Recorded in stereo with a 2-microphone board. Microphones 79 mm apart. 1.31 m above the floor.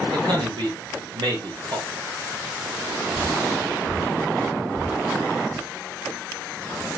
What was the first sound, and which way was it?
A man speaking, 75° right (ahead or behind).